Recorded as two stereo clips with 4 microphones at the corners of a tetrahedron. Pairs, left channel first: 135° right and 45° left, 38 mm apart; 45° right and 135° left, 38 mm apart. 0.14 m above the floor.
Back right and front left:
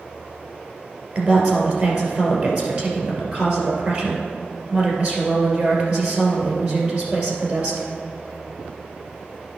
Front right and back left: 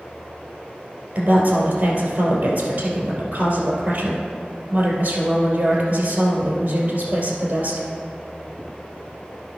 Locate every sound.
1.1 s a woman speaking: 90° left, 2.5 m